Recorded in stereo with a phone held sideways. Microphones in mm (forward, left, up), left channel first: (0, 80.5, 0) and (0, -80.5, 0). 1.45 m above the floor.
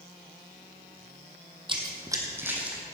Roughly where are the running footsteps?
Right.